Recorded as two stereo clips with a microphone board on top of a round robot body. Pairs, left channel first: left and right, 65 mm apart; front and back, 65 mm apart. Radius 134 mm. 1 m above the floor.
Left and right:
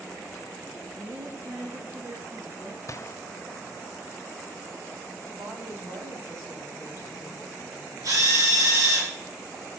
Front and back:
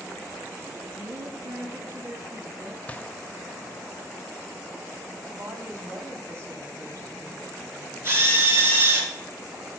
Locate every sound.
0.9 s a woman speaking: 135° right, 2 m
2.9 s a gunshot: 65° left, 0.6 m
5.3 s a woman speaking: 125° right, 2.5 m
8.0 s a drill: 125° right, 4.5 m